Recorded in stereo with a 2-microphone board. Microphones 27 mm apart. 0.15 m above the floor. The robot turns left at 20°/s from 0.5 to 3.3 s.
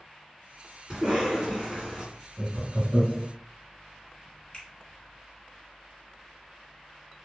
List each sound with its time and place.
0.9 s a cough: 15° right (ahead or behind), 1.7 m; by 2.0 s 5° right (ahead or behind), 1.7 m
2.4 s laughter: 30° right (ahead or behind), 1.2 m
4.5 s a finger snap: 35° left (ahead or behind), 1.3 m